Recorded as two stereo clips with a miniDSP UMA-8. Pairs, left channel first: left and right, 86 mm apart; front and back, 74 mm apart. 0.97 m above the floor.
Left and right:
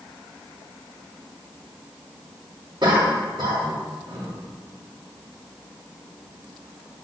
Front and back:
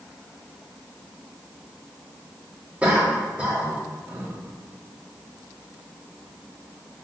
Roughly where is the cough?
Right.